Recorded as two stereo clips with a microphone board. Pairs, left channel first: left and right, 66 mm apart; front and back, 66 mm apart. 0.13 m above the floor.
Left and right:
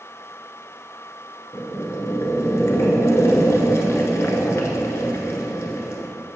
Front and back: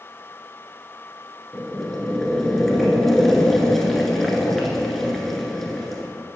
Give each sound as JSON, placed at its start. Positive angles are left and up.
{"t": 1.5, "sound": "boiling", "azimuth_deg": 85, "distance_m": 1.1}